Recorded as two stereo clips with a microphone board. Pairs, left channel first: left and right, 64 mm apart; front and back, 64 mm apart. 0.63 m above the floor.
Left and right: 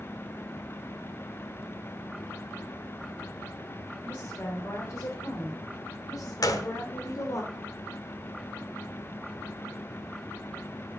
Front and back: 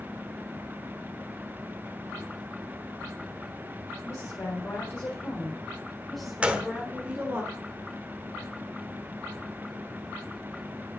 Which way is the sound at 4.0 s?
40° left.